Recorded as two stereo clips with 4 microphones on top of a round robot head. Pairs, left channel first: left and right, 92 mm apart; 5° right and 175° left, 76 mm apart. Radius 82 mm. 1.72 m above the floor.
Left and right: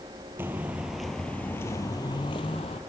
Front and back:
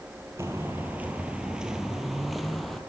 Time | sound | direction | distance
0.4 | footsteps | 135° right | 1.8 m